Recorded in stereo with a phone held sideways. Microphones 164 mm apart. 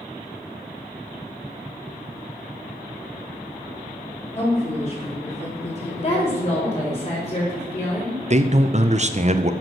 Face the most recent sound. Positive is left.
turn(degrees=-40)  # may be behind; listen again after turning